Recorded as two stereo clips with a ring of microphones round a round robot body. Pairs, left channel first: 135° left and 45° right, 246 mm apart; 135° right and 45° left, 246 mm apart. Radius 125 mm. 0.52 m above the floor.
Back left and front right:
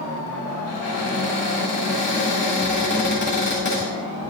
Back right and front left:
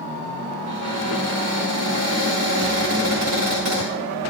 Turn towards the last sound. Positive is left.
turn(degrees=75)